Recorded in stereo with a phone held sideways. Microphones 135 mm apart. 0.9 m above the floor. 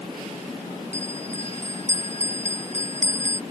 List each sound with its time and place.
0.9 s a bell: 60° right (ahead or behind)